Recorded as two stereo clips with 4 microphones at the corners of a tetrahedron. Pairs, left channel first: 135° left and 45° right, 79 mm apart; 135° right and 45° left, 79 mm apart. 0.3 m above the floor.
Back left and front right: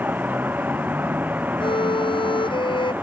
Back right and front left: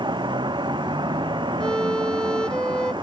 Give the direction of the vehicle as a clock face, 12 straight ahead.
11 o'clock.